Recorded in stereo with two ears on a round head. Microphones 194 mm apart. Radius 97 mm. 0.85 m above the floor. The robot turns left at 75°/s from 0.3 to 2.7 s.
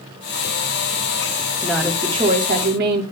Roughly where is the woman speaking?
Ahead.